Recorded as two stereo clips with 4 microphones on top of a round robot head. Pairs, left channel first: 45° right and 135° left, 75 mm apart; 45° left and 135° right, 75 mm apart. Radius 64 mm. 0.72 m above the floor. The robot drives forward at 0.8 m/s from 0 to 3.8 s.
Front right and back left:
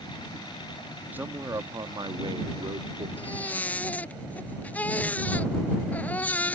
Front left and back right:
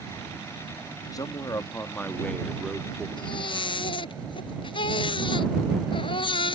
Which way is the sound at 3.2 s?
30° left.